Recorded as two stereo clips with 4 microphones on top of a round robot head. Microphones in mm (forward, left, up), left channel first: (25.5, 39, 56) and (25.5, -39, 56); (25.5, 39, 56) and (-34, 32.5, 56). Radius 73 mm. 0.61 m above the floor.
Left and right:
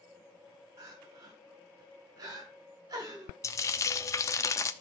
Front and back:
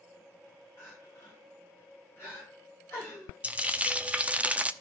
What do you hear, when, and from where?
0.8 s crying: 55° right, 6.5 m
3.4 s frying: 125° left, 0.8 m